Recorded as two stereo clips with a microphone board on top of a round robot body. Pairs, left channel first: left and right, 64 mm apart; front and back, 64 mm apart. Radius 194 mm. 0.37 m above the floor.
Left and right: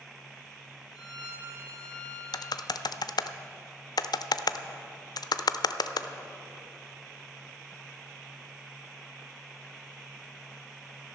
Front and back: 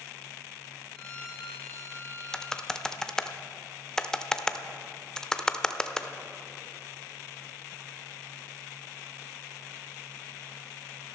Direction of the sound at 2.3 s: 80° left.